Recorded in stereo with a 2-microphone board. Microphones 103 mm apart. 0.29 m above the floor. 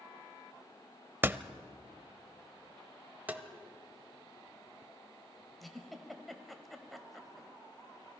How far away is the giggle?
About 1.6 m.